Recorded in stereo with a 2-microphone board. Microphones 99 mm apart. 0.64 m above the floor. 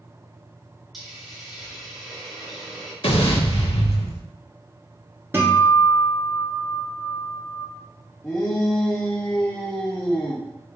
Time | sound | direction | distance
0.9 | a hiss | centre (ahead or behind) | 1.2 m
3.0 | an explosion | 85° left | 0.8 m
5.3 | a guitar | 20° right (ahead or behind) | 1.5 m
8.2 | a shout | 10° left (ahead or behind) | 0.7 m